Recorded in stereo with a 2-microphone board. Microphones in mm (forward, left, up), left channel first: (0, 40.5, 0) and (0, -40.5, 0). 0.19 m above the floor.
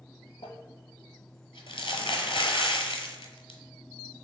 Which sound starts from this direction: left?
Crumpling, at 0.4 s.